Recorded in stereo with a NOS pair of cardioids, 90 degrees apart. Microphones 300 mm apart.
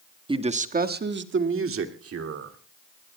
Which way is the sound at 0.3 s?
15° right.